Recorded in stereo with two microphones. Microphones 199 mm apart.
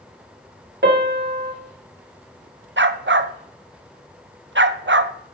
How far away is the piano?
About 1.6 m.